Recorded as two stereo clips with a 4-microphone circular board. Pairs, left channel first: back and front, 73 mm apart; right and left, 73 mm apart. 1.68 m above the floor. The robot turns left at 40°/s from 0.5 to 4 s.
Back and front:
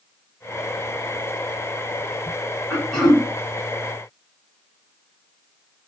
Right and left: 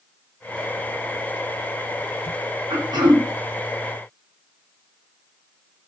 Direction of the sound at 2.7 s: 105° left.